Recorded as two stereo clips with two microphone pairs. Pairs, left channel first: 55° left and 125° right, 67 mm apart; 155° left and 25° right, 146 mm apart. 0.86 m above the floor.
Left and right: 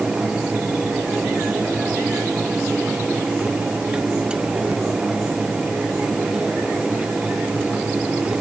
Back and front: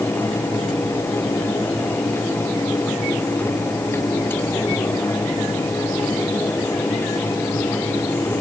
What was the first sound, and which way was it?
Only background noise.